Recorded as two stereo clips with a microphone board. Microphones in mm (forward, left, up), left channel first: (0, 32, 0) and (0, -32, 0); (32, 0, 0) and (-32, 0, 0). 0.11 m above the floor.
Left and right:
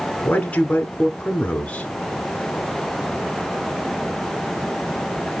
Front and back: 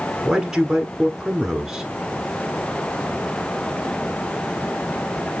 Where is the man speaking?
110° left, 1.2 m.